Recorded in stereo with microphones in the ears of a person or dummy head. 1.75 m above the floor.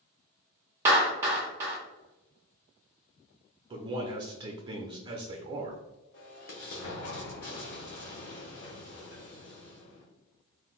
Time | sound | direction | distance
0.8 | a clap | 15° right (ahead or behind) | 0.8 m
3.7 | a man speaking | 25° right (ahead or behind) | 0.5 m
6.1 | an explosion | 55° left (ahead or behind) | 0.8 m